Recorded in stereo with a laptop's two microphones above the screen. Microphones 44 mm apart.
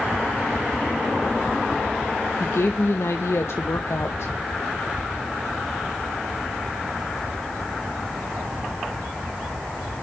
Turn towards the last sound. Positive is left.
turn(degrees=70)  # may be behind; listen again after turning